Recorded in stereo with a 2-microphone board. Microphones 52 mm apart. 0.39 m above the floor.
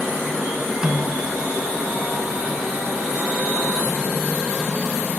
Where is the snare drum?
20° right (ahead or behind), 1.0 m.